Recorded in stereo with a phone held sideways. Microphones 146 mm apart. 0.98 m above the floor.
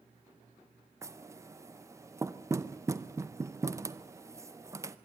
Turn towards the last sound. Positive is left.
turn(degrees=-20)  # may be behind; listen again after turning